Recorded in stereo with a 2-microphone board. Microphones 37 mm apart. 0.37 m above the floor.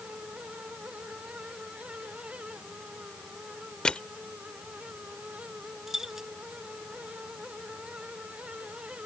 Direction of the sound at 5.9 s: 10° right (ahead or behind).